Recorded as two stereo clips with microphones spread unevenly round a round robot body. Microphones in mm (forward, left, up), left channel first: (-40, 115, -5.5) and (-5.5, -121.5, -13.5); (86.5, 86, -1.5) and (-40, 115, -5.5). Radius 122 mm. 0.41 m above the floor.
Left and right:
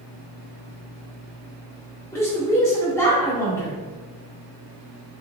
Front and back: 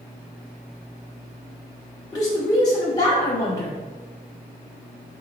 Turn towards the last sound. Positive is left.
turn(degrees=25)